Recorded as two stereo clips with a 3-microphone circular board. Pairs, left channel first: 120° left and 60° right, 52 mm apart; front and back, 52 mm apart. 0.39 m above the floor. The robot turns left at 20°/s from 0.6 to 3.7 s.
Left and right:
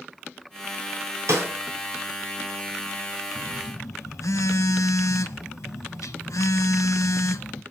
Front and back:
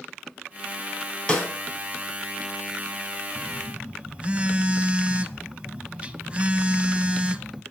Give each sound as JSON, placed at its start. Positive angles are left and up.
{"t": 1.3, "sound": "a snare drum", "azimuth_deg": -70, "distance_m": 3.0}
{"t": 3.4, "sound": "a phone buzzing", "azimuth_deg": 125, "distance_m": 0.5}